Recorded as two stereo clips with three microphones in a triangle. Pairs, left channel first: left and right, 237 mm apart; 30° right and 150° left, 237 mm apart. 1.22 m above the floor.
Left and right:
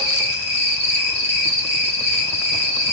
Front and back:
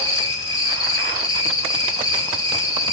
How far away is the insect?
About 1.1 m.